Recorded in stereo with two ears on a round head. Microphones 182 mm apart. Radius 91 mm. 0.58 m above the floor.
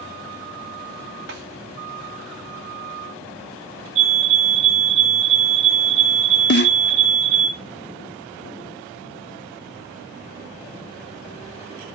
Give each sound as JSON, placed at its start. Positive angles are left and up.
{"t": 1.3, "sound": "a snare drum", "side_deg": -60, "distance_m": 2.5}
{"t": 4.0, "sound": "a fire alarm", "side_deg": -35, "distance_m": 3.5}
{"t": 6.5, "sound": "a snare drum", "side_deg": 55, "distance_m": 0.7}